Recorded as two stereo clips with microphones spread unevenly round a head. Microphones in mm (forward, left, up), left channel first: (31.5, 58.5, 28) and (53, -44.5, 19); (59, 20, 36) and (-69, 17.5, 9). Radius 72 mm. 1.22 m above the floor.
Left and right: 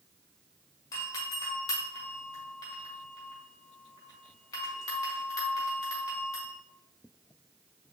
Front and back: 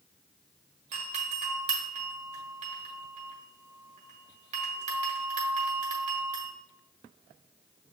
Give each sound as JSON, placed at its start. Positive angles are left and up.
{"t": 0.9, "sound": "a doorbell", "azimuth_deg": 165, "distance_m": 1.7}